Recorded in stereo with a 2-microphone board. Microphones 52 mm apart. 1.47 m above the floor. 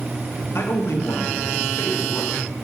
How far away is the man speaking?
About 1.4 m.